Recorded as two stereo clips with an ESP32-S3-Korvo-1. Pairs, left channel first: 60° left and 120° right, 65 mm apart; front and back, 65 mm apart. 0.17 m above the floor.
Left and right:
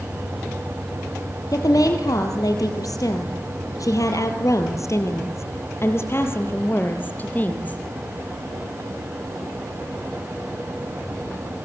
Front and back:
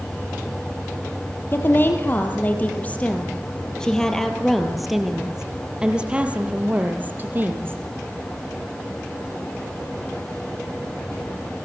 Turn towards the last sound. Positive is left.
turn(degrees=125)